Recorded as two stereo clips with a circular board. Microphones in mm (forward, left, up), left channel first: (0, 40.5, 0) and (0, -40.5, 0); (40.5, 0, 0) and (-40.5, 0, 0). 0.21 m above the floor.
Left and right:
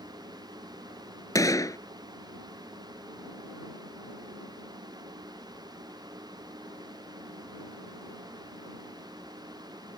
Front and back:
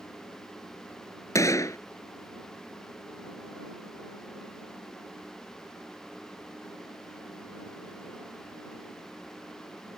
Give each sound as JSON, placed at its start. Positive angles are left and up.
{"t": 1.4, "sound": "a gunshot", "azimuth_deg": 50}